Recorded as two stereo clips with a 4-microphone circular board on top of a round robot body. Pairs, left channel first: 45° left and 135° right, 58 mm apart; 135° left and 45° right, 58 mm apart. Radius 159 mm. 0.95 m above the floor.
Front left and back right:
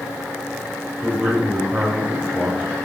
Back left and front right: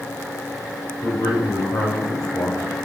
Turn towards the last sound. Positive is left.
turn(degrees=160)